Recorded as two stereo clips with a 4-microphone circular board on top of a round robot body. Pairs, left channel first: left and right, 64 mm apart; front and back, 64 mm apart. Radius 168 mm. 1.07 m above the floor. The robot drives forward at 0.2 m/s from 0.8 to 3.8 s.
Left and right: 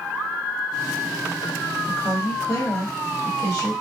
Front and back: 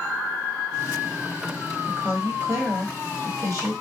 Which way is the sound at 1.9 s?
125° left.